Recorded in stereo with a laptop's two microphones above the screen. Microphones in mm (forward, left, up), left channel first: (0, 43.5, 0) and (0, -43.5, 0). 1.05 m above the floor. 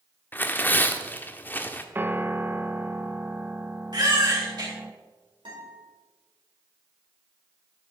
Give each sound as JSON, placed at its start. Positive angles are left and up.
{"t": 0.3, "sound": "tearing paper", "side_deg": 25, "distance_m": 0.9}
{"t": 1.9, "sound": "a piano", "side_deg": -25, "distance_m": 0.7}
{"t": 3.9, "sound": "a baby crying", "side_deg": -60, "distance_m": 4.0}
{"t": 5.5, "sound": "a guitar", "side_deg": -75, "distance_m": 5.0}